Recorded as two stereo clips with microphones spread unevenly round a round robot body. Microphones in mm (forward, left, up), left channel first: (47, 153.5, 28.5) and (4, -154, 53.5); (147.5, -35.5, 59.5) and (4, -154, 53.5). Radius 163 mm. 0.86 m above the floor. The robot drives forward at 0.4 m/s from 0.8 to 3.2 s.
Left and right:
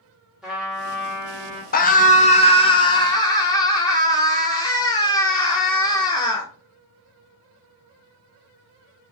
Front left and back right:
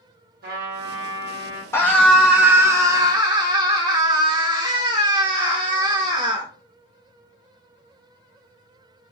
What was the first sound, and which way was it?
A trumpet, 175° left.